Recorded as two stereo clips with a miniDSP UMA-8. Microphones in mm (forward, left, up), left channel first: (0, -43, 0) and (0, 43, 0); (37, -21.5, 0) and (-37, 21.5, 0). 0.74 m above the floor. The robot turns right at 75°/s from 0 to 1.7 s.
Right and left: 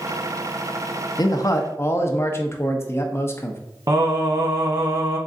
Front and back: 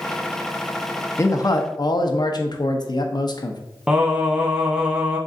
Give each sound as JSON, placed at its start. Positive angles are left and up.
{"t": 1.2, "sound": "a man speaking", "azimuth_deg": -80, "distance_m": 0.6}
{"t": 3.9, "sound": "singing", "azimuth_deg": 70, "distance_m": 0.8}